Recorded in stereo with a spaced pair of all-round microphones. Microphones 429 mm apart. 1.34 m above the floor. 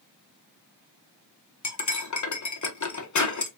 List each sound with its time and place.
1.6 s cutlery clinking: 45° left (ahead or behind), 0.6 m